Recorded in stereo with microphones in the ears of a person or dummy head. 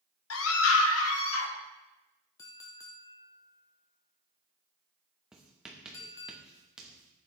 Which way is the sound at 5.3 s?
Centre (ahead or behind).